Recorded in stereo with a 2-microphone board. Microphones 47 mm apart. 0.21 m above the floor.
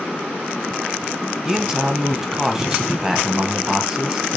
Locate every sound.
1.4 s a man speaking: 10° right (ahead or behind), 1.0 m